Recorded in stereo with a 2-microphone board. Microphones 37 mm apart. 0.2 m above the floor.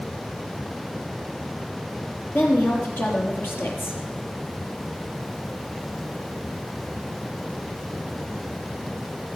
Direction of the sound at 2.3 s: 75° left (ahead or behind).